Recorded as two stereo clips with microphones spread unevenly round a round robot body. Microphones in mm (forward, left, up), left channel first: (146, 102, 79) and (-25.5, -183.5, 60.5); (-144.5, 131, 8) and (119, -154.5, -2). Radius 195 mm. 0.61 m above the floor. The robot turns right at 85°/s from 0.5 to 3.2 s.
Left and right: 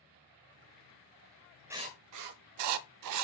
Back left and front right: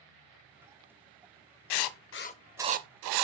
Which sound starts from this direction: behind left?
Writing, at 1.7 s.